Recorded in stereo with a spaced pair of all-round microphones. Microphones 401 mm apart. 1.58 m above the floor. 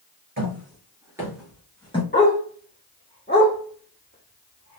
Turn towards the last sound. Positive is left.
turn(degrees=25)  # may be behind; listen again after turning